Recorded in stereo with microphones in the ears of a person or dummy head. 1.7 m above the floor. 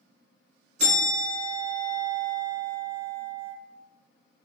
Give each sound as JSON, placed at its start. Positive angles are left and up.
{"t": 0.8, "sound": "a bell", "side_deg": -40, "distance_m": 2.0}